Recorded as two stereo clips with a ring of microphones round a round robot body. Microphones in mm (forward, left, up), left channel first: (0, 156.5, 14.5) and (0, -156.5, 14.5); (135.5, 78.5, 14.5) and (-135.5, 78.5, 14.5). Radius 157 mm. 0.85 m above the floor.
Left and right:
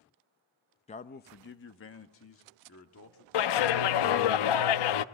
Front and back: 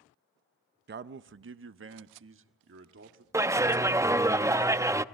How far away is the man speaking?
About 0.6 m.